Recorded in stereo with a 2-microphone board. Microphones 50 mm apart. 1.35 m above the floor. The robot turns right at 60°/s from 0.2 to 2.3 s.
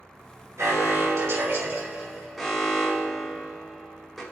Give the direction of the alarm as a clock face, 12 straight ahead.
4 o'clock.